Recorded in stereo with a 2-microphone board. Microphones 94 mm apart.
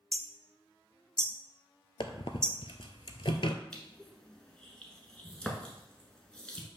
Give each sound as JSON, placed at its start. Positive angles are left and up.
{"t": 0.1, "sound": "hammering", "side_deg": 10, "distance_m": 0.6}
{"t": 2.0, "sound": "a squeak", "side_deg": 70, "distance_m": 0.6}
{"t": 3.7, "sound": "crushing", "side_deg": 10, "distance_m": 1.3}